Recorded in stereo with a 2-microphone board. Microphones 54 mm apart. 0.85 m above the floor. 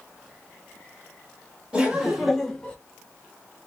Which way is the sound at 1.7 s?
20° right (ahead or behind).